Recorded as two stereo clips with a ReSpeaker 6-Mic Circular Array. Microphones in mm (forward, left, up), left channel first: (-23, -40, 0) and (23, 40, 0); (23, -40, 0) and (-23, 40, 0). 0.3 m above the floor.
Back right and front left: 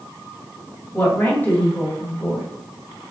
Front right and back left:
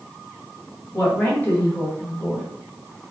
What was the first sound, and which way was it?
A woman speaking, 100° right.